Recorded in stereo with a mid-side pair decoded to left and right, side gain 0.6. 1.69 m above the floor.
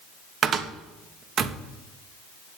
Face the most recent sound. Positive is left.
turn(degrees=-45)